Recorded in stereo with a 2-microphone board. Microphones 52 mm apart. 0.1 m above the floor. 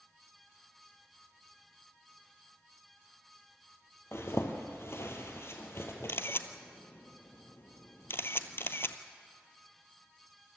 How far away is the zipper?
About 2.5 m.